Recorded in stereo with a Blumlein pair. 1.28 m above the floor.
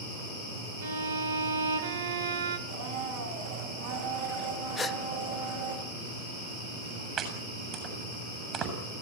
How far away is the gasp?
About 0.7 m.